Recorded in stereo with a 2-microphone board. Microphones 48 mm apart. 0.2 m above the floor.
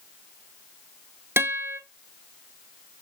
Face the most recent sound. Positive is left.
turn(degrees=-60)  # may be behind; listen again after turning